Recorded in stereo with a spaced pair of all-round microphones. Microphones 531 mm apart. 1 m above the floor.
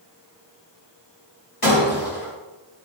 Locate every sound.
1.6 s breaking glass: 90° left, 5.5 m